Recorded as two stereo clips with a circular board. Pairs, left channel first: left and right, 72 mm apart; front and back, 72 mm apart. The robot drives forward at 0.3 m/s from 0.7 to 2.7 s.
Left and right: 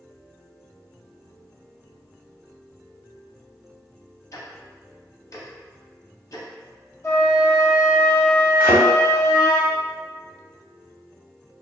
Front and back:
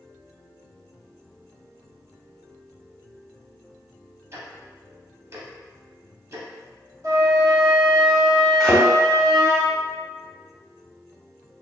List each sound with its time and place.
4.3 s ticking: 130° left, 0.6 m
7.0 s a flute: 145° left, 1.1 m
8.6 s a thud: 70° right, 0.9 m